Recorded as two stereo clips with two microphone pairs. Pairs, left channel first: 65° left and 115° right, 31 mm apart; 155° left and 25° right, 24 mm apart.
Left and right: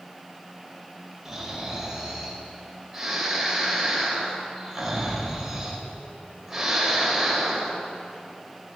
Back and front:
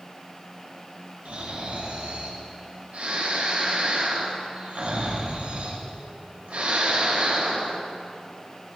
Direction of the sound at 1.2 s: 35° right.